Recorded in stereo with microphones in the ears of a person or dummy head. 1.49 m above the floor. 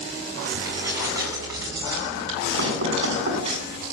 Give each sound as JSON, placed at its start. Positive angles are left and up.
{"t": 0.6, "sound": "keys jangling", "side_deg": -15, "distance_m": 8.5}
{"t": 2.6, "sound": "knocking", "side_deg": -55, "distance_m": 9.5}